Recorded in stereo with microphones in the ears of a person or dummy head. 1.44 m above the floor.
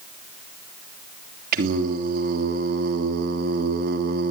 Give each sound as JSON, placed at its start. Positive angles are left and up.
{"t": 1.5, "sound": "singing", "side_deg": -50, "distance_m": 3.0}